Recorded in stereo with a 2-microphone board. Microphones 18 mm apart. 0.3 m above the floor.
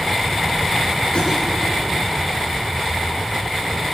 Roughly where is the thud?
Left.